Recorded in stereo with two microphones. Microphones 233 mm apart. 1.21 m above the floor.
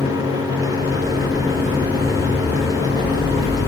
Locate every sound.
0.8 s footsteps: 30° right (ahead or behind), 1.8 m; by 3.7 s 30° left (ahead or behind), 2 m